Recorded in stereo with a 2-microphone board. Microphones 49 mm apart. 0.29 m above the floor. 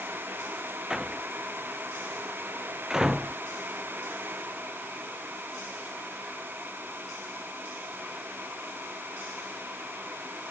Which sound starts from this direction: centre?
A door slam, at 0.9 s.